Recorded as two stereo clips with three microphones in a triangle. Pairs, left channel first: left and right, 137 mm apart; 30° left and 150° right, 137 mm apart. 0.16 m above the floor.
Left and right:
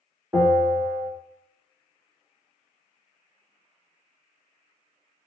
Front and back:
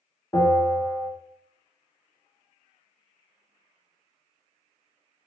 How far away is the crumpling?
No crumpling in this recording.